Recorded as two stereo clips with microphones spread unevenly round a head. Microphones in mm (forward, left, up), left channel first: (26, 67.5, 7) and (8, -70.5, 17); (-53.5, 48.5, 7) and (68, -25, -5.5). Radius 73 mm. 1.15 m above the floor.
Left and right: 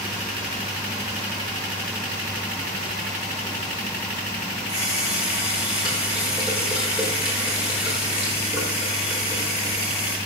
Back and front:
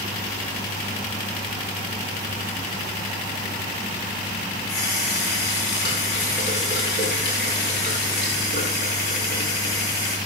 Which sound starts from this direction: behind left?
A running tap, at 4.7 s.